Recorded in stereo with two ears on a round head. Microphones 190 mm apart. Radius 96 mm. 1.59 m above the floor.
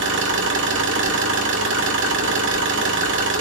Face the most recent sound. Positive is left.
turn(degrees=-55)  # may be behind; listen again after turning